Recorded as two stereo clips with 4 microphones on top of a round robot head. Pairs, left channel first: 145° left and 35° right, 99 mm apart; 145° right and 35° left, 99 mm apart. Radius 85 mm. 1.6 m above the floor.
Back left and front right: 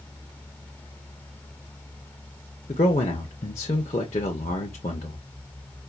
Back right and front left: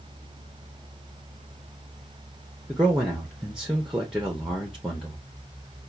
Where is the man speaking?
125° left, 0.7 m.